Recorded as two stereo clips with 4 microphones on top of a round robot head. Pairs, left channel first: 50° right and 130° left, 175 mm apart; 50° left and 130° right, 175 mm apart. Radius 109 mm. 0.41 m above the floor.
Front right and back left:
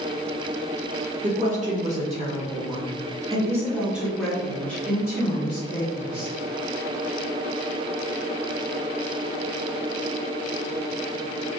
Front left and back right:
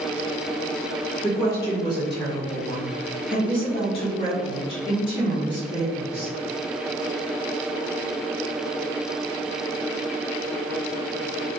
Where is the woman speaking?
115° left, 2.0 m; by 6.3 s 5° right, 1.9 m.